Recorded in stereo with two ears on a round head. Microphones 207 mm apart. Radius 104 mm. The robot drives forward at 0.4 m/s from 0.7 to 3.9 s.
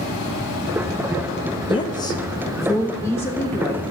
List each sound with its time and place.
1.7 s a woman speaking: 20° left (ahead or behind), 0.7 m; by 3.8 s 10° left (ahead or behind), 1.5 m